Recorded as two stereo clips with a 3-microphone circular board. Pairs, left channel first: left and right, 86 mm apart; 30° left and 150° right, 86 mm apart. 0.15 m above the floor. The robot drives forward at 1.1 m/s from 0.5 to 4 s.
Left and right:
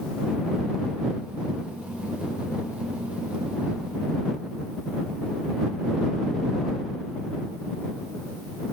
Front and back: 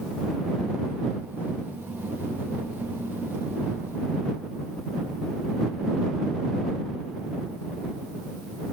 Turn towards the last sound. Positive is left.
No sound to turn to.